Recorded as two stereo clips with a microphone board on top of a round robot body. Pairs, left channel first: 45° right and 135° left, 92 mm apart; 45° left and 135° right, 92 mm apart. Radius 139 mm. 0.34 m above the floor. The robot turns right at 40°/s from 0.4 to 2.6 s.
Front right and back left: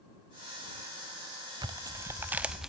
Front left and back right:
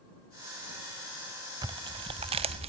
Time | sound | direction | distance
1.6 | tearing paper | straight behind | ?